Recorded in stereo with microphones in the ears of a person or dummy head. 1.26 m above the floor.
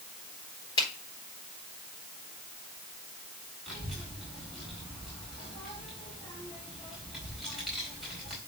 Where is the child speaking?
Centre (ahead or behind), 4 m.